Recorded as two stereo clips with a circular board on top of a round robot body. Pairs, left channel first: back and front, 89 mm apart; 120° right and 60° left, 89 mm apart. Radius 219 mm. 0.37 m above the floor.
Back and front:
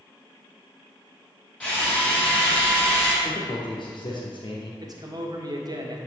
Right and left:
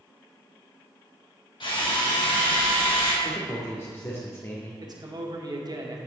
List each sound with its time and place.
1.6 s a drill: 105° right, 4 m
3.2 s a man speaking: 175° right, 1.6 m
4.8 s a man speaking: 30° left, 2 m